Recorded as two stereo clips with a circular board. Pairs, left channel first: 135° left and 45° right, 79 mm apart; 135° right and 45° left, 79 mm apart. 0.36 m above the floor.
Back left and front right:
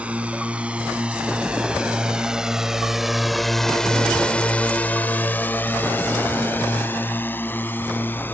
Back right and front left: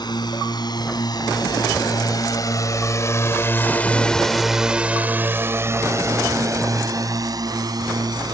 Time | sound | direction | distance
0.0 | a drone | 120° right | ?